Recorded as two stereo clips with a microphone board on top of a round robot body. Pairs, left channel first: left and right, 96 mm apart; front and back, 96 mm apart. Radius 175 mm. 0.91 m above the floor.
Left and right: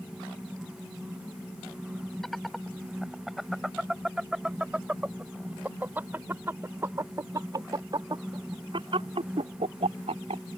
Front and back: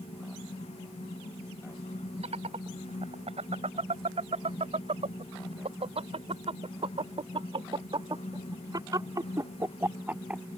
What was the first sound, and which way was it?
Laughter, straight behind.